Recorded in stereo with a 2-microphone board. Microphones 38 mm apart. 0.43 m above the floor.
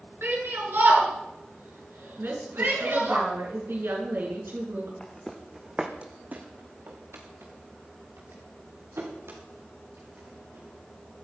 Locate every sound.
0.2 s a shout: 75° right (ahead or behind), 5.5 m
2.2 s a woman speaking: 75° right (ahead or behind), 6 m
5.0 s footsteps: 15° left (ahead or behind), 2 m; by 11.2 s 85° right, 8.5 m